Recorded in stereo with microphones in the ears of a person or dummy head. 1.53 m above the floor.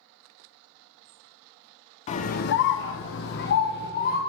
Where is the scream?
40° left (ahead or behind), 0.6 m; by 4.2 s 45° left (ahead or behind), 1.1 m.